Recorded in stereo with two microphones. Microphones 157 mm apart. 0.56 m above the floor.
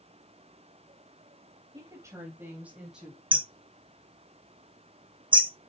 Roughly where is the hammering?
Right.